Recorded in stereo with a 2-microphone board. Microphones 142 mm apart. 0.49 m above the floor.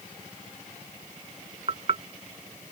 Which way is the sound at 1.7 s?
45° right (ahead or behind).